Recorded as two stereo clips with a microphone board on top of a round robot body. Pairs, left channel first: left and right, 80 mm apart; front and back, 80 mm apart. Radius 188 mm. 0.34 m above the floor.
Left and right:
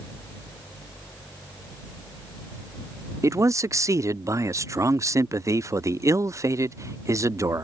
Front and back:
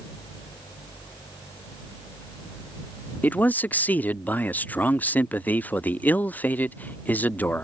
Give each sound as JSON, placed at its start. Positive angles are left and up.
{"t": 3.2, "sound": "a man speaking", "azimuth_deg": -60}